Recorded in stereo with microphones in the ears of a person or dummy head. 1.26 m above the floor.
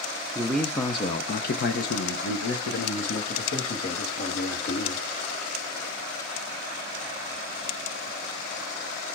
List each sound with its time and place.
0.3 s a man speaking: 5° right (ahead or behind), 0.7 m; by 5.0 s 80° left, 2.5 m